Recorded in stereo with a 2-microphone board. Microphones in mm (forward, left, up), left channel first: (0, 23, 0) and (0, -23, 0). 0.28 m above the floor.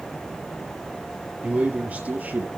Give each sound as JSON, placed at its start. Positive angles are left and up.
{"t": 1.4, "sound": "a man speaking", "side_deg": -30, "distance_m": 5.0}